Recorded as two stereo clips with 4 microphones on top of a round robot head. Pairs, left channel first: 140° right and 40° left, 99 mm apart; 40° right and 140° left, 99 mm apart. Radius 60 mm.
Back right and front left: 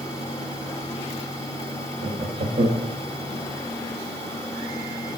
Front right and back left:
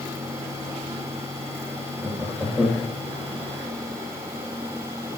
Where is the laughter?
45° left, 1.5 m.